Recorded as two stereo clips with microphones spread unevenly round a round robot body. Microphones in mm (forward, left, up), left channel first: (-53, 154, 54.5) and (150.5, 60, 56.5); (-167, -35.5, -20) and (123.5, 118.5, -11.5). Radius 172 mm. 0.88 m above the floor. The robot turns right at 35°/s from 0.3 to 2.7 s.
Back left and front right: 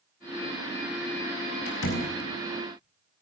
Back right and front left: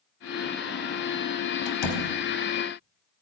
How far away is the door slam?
About 4 m.